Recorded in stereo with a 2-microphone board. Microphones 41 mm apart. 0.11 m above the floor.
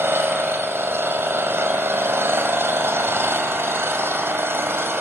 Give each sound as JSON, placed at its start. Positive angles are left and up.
{"t": 0.0, "sound": "an engine running", "side_deg": -70, "distance_m": 2.0}